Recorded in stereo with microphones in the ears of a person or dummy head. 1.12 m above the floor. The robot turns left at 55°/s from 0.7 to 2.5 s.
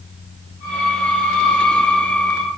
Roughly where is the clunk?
I don't hear a clunk.